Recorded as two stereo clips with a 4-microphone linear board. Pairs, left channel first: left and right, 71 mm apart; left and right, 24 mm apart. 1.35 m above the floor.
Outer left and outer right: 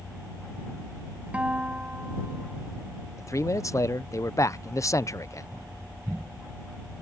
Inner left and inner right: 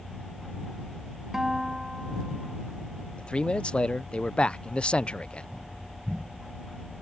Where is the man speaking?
50° left (ahead or behind).